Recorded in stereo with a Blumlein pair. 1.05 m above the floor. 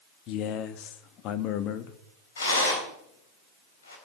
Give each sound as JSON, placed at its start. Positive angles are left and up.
{"t": 0.3, "sound": "a man speaking", "azimuth_deg": 35, "distance_m": 1.4}
{"t": 2.4, "sound": "a rattle", "azimuth_deg": 70, "distance_m": 4.5}